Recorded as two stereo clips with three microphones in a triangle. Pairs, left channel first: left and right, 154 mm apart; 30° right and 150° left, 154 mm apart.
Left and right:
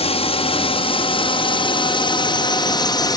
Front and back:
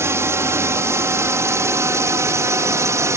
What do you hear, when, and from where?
0.0 s a drone: 85° left; by 3.2 s 105° left